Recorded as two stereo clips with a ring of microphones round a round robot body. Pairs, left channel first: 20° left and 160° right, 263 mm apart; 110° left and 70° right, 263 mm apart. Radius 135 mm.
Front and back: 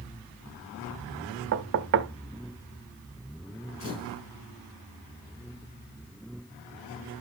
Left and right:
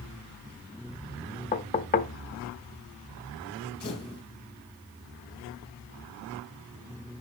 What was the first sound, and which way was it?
Knocking, 170° left.